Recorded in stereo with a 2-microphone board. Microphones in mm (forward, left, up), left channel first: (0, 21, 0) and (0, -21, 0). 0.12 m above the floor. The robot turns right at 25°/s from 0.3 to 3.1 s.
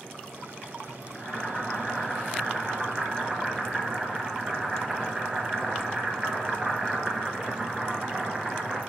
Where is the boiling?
145° left, 1.3 m; by 8.8 s 165° right, 1.3 m.